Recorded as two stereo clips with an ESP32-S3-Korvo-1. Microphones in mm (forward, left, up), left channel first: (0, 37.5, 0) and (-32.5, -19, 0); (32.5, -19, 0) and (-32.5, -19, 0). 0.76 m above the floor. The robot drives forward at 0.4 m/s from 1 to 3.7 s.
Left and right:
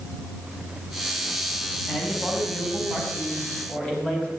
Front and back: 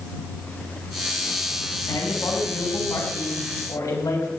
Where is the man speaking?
15° right, 5 m.